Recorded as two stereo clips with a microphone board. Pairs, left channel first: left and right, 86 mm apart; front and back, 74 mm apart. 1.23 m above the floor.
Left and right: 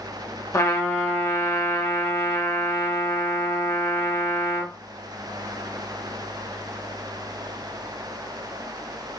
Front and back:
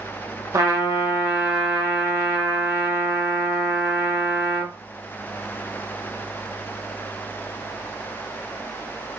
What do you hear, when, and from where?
0.5 s a trumpet: 140° left, 0.8 m